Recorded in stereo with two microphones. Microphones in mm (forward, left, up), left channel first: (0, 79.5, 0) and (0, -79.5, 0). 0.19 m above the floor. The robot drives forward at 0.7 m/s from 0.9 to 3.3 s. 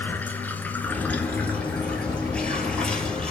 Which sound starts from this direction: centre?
Running water, at 0.0 s.